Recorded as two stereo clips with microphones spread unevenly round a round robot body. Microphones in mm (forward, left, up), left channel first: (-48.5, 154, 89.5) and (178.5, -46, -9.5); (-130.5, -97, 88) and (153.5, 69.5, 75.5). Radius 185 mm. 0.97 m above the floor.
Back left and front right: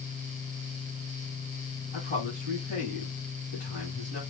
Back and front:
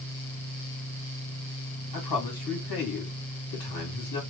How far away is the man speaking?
About 2 m.